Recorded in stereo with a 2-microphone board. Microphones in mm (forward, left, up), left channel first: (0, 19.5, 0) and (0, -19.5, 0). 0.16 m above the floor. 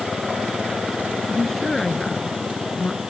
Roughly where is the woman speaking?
Centre.